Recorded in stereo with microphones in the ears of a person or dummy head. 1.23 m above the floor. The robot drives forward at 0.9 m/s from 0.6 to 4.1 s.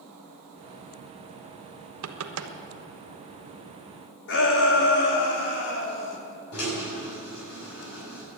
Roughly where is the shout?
Left.